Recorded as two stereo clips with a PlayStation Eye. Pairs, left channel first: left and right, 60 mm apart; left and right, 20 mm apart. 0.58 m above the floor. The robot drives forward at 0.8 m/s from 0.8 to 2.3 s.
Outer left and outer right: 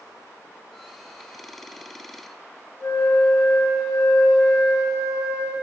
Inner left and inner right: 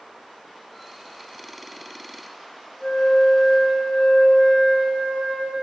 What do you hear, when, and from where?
2.8 s a flute: 75° left (ahead or behind), 2.5 m